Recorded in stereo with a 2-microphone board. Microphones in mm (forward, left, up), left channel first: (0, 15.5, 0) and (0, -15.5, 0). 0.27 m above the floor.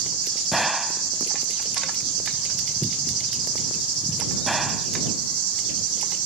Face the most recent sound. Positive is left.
turn(degrees=-5)  # may be behind; listen again after turning